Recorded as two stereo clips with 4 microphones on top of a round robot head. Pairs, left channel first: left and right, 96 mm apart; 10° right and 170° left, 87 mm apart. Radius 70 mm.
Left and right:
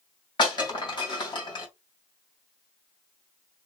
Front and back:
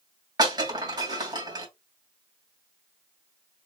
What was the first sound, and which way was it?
Breaking glass, 125° left.